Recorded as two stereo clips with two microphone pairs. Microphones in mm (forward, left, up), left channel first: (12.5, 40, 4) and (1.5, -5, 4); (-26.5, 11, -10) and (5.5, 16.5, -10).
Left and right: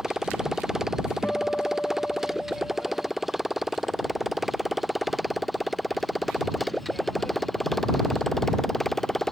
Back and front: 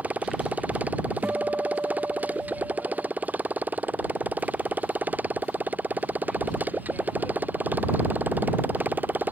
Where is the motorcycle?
25° right; by 9.3 s 10° right.